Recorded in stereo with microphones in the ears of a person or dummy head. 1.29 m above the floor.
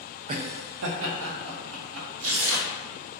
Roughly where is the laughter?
Right.